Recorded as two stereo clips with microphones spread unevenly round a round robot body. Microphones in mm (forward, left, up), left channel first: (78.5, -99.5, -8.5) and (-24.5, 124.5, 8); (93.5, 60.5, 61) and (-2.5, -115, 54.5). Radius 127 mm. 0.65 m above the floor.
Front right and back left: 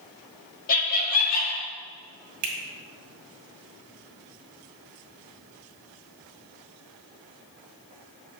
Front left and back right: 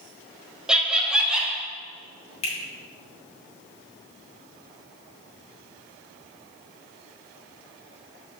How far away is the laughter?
About 1.5 m.